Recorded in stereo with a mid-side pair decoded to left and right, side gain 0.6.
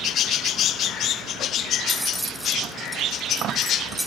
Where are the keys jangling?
Straight ahead, 1.0 m.